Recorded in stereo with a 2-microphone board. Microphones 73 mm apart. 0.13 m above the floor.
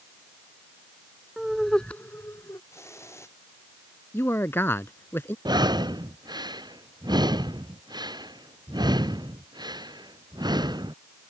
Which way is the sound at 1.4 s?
10° right (ahead or behind).